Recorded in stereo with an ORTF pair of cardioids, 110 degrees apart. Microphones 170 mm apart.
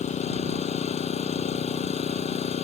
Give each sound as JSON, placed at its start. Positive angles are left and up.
{"t": 0.0, "sound": "an engine running", "azimuth_deg": 40}